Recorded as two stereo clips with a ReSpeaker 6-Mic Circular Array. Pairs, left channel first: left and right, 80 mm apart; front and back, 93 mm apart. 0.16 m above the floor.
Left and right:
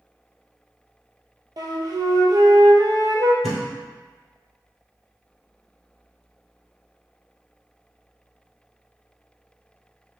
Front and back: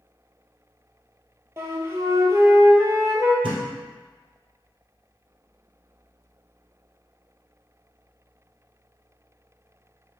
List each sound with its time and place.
1.6 s a flute: 120° right, 0.7 m
3.4 s a thud: 175° left, 1.6 m